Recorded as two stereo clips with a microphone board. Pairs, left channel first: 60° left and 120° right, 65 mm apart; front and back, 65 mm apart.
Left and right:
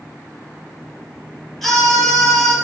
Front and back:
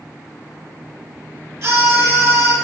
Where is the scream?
145° left, 3.5 m.